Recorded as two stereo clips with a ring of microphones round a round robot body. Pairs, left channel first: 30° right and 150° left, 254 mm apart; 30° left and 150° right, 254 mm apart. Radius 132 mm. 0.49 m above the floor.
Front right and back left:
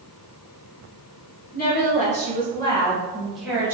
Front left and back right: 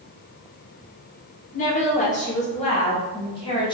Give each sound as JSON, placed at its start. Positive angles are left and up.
{"t": 1.5, "sound": "a woman speaking", "azimuth_deg": -10, "distance_m": 1.6}